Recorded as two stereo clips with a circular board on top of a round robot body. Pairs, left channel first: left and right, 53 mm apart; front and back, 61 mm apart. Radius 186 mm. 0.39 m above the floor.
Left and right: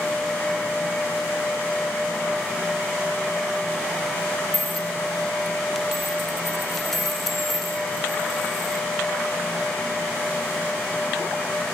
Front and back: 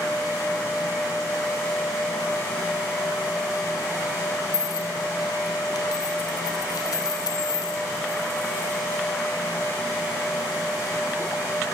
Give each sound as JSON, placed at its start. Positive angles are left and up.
{"t": 4.5, "sound": "a dropped coin", "azimuth_deg": 5, "distance_m": 1.6}